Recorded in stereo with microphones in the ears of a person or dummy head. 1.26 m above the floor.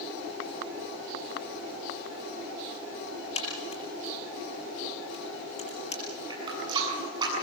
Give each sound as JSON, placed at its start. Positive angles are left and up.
{"t": 3.4, "sound": "a crack", "side_deg": 40, "distance_m": 6.5}
{"t": 6.3, "sound": "a running tap", "side_deg": -30, "distance_m": 8.0}